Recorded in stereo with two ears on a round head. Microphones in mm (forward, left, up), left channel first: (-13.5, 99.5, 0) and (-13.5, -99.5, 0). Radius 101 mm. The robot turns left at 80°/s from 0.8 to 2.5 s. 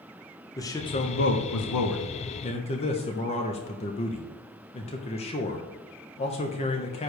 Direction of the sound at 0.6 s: 165° left.